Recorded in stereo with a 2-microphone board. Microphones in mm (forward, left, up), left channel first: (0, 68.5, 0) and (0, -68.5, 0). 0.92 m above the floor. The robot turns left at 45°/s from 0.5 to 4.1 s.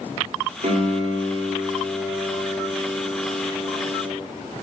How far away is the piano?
About 2.5 m.